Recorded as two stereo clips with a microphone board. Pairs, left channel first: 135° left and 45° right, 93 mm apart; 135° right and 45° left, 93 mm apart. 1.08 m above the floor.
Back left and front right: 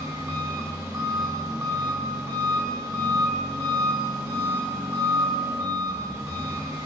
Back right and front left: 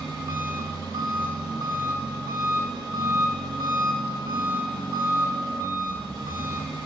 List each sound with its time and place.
0.0 s an engine running: 5° left, 1.6 m